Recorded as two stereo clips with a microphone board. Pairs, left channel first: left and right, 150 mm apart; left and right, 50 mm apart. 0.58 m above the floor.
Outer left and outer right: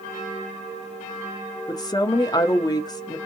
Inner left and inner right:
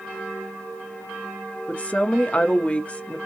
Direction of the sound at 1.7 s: 30° left (ahead or behind).